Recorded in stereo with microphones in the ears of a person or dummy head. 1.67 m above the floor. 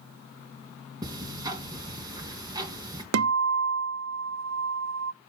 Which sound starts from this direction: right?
A guitar, at 3.1 s.